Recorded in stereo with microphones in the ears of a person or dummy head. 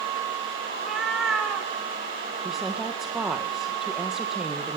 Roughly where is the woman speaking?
Centre.